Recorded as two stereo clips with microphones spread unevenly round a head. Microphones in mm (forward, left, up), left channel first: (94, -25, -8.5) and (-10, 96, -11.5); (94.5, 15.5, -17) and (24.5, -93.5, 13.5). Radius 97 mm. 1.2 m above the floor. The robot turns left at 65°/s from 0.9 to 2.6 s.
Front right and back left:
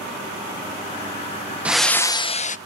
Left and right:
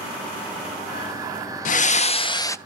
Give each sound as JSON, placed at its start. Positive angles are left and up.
{"t": 1.6, "sound": "breathing", "azimuth_deg": 50, "distance_m": 0.8}